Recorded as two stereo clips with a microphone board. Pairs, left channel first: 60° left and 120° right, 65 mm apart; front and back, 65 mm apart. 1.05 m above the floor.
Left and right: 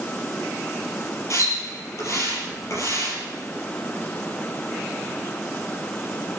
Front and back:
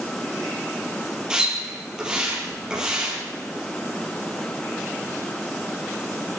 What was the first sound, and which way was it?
A splash, 100° left.